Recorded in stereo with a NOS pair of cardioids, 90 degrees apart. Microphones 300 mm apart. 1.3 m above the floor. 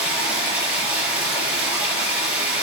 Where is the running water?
5° right, 5.5 m.